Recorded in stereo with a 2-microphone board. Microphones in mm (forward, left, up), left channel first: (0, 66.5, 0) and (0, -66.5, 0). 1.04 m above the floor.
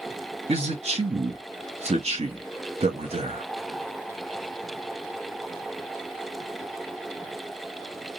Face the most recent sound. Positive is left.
turn(degrees=-50)  # may be behind; listen again after turning